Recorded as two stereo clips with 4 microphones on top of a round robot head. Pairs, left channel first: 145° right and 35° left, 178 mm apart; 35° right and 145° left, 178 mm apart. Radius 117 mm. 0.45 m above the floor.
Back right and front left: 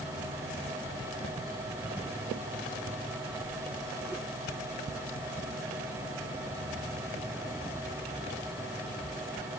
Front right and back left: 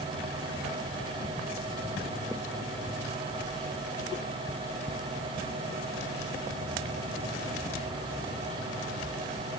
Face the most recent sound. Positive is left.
No sound to turn to.